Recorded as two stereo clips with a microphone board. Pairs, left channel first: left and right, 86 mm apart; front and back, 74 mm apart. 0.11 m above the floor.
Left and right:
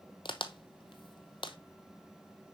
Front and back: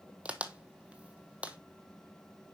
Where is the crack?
105° left, 0.6 m.